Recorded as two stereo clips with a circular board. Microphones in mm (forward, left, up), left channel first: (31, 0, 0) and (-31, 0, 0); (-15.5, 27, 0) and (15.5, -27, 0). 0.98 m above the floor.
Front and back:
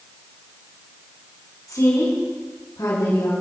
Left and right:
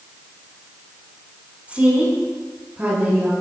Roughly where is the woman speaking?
Ahead.